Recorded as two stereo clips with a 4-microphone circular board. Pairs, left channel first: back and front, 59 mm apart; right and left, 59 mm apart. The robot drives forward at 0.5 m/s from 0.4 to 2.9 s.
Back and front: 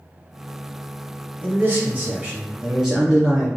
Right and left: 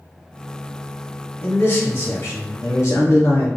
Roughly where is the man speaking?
Ahead right.